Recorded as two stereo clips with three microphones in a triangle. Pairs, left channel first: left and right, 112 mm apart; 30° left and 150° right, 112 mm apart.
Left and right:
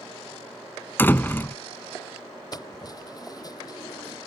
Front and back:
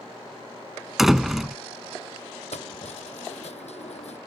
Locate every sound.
1.0 s a door slam: 125° left
2.5 s keys jangling: 35° left